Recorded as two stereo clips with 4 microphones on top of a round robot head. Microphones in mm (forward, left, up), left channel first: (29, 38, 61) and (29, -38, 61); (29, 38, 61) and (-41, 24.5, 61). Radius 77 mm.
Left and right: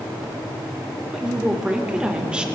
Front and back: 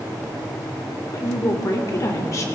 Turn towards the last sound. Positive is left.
turn(degrees=-15)